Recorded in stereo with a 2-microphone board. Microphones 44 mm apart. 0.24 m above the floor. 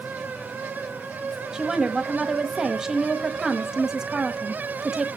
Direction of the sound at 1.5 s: 15° right (ahead or behind).